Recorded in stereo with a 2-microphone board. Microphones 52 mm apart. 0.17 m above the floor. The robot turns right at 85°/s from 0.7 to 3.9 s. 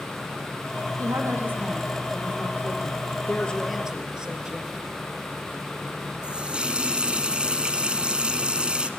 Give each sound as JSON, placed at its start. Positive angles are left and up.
{"t": 1.0, "sound": "a woman speaking", "azimuth_deg": -80, "distance_m": 5.0}
{"t": 3.3, "sound": "a woman speaking", "azimuth_deg": 140, "distance_m": 3.0}
{"t": 6.2, "sound": "a running tap", "side_deg": -20, "distance_m": 1.3}